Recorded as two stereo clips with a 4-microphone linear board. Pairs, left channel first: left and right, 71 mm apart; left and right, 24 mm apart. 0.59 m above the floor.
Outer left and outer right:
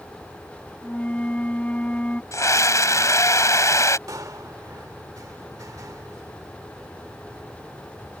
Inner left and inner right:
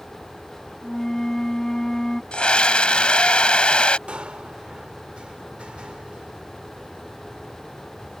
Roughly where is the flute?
Left.